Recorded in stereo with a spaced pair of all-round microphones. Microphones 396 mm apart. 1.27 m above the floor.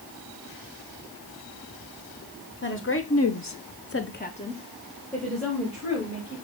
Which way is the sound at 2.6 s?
30° left (ahead or behind).